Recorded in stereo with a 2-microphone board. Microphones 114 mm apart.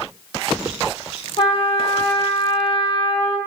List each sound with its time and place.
1.4 s a trumpet: 50° left (ahead or behind), 0.5 m